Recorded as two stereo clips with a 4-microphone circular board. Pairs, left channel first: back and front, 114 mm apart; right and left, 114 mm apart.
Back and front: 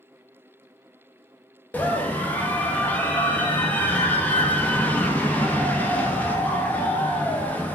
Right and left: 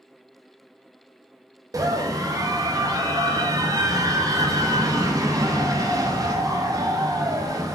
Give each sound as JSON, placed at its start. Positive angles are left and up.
{"t": 1.7, "sound": "a scream", "azimuth_deg": 115, "distance_m": 0.5}